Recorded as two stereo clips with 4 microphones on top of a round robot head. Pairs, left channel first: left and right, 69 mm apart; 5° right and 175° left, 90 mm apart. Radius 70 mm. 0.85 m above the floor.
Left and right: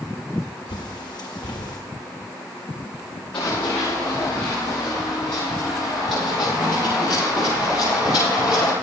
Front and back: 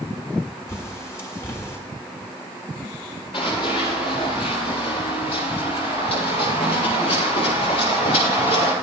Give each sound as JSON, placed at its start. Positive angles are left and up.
{"t": 0.7, "sound": "a bird", "azimuth_deg": 55, "distance_m": 1.7}
{"t": 3.3, "sound": "running footsteps", "azimuth_deg": 20, "distance_m": 7.0}